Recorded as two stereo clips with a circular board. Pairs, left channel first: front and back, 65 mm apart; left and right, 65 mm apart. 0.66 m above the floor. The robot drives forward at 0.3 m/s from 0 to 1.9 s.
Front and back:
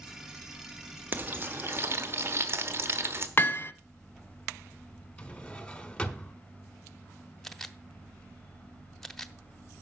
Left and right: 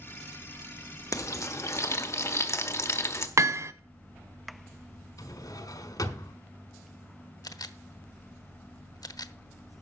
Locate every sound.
1.1 s frying: 120° left, 1.0 m; by 3.3 s 130° left, 1.1 m
3.4 s hammering: 55° right, 0.7 m
5.2 s a drawer: 75° left, 1.4 m
7.4 s a camera shutter: 85° left, 0.7 m